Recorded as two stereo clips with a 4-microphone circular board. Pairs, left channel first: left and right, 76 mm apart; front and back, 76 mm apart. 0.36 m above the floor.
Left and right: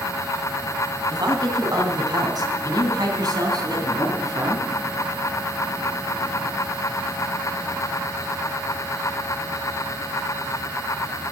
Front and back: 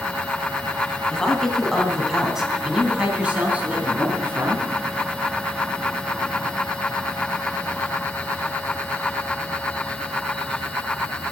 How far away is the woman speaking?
About 2.5 m.